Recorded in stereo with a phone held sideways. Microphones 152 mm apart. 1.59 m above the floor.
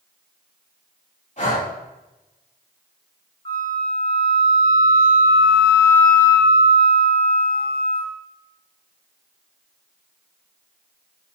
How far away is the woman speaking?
No woman speaking in this recording.